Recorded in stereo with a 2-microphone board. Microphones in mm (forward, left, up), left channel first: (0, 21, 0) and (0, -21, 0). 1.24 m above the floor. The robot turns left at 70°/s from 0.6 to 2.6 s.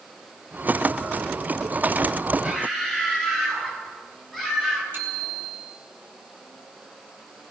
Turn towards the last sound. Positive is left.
turn(degrees=-50)  # may be behind; listen again after turning